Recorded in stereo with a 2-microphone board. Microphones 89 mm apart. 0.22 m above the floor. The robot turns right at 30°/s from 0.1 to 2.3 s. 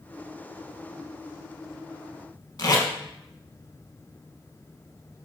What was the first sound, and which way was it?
Tape being pulled, 55° left (ahead or behind).